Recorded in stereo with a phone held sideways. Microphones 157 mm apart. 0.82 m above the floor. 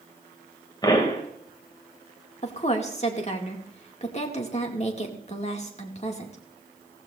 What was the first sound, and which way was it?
A pop, 25° left (ahead or behind).